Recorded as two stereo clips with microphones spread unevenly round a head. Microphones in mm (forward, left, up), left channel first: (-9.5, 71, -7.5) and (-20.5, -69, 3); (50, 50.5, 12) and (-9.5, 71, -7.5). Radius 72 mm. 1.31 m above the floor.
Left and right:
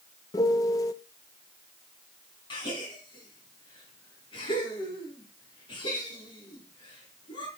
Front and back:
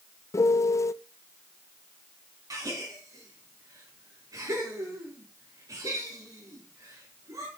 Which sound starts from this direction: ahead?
A piano, at 0.3 s.